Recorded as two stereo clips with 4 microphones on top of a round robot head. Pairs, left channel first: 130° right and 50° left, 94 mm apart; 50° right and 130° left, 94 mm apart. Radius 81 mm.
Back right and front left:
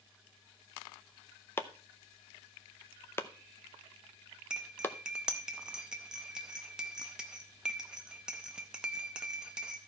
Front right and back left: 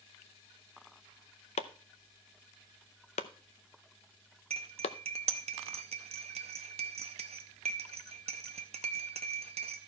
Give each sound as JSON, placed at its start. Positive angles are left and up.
{"t": 1.6, "sound": "chopping", "azimuth_deg": -65, "distance_m": 0.6}
{"t": 4.5, "sound": "cutlery clinking", "azimuth_deg": 130, "distance_m": 0.6}